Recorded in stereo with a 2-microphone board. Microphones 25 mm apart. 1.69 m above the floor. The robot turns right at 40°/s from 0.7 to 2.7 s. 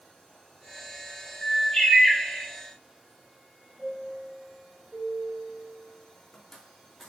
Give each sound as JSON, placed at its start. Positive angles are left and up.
{"t": 1.4, "sound": "a bird", "azimuth_deg": 135, "distance_m": 4.5}
{"t": 3.8, "sound": "a chime", "side_deg": 10, "distance_m": 3.0}